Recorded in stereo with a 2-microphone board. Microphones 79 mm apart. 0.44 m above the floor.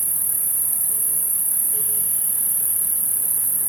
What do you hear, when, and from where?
0.0 s an insect: 25° right (ahead or behind), 1.3 m